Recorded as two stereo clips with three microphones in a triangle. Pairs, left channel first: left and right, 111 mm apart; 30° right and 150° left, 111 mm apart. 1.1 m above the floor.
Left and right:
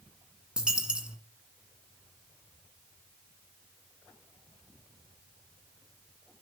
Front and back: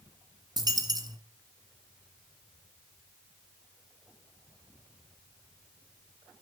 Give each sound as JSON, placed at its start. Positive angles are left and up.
{"t": 0.6, "sound": "a dropped coin", "azimuth_deg": -170, "distance_m": 1.8}